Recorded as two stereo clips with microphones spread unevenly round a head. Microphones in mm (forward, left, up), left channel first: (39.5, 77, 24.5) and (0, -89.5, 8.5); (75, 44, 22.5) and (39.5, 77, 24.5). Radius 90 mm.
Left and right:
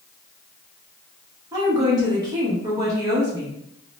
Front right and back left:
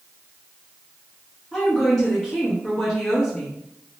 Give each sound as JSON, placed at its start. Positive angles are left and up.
{"t": 1.5, "sound": "a woman speaking", "azimuth_deg": -110, "distance_m": 0.8}